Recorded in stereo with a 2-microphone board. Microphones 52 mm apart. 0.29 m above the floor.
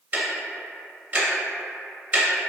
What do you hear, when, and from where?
0.1 s ticking: 35° right (ahead or behind), 0.5 m